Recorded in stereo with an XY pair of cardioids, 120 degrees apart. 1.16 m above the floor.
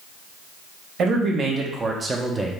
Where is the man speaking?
60° right, 1.3 m; by 2.5 s 10° right, 0.8 m.